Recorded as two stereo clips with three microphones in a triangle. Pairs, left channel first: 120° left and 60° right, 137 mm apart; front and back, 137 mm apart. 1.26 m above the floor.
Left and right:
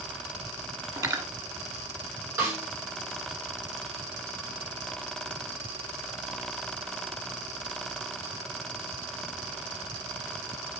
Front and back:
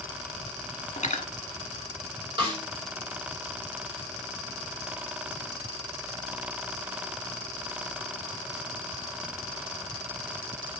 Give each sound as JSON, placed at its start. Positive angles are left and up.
{"t": 1.0, "sound": "cutlery clinking", "azimuth_deg": 0, "distance_m": 1.4}
{"t": 2.4, "sound": "a snare drum", "azimuth_deg": -130, "distance_m": 5.0}